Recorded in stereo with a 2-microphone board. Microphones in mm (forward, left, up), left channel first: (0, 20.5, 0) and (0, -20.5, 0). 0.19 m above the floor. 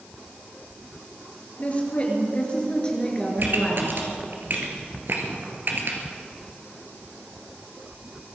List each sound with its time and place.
1.6 s a woman speaking: 30° left (ahead or behind), 4 m; by 4.0 s 10° left (ahead or behind), 3 m
3.4 s a pop: 50° right (ahead or behind), 2.5 m